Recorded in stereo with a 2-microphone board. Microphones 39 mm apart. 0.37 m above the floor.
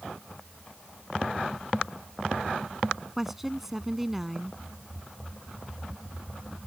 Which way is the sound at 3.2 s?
10° right (ahead or behind).